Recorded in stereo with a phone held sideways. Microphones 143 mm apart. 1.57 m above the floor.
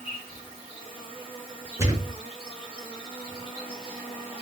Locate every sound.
0.0 s an insect: 40° left (ahead or behind), 1.3 m
1.8 s a thud: 20° right (ahead or behind), 1.5 m